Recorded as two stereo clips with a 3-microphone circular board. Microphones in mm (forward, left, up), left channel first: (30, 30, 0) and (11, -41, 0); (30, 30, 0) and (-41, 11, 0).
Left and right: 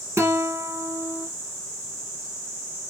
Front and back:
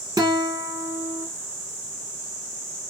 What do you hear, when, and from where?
0.2 s a guitar: 155° right, 1.1 m